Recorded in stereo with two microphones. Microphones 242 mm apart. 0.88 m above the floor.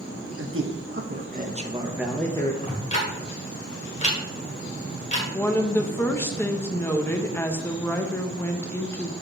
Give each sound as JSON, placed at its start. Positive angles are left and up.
{"t": 0.4, "sound": "a man speaking", "side_deg": -55, "distance_m": 1.1}
{"t": 2.6, "sound": "ticking", "side_deg": 30, "distance_m": 1.5}
{"t": 5.3, "sound": "a woman speaking", "side_deg": 10, "distance_m": 0.6}